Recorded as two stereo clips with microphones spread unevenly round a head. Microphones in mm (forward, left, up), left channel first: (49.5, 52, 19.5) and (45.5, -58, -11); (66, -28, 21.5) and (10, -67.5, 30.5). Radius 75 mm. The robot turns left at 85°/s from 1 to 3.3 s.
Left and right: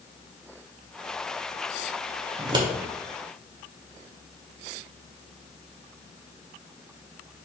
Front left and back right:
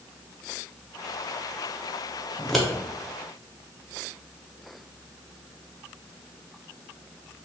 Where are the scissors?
55° right, 0.6 m; by 2.7 s 80° right, 0.6 m.